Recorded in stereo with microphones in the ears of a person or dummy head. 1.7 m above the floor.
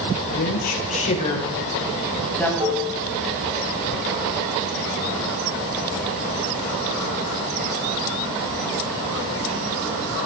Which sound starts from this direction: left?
A woman speaking, at 0.3 s.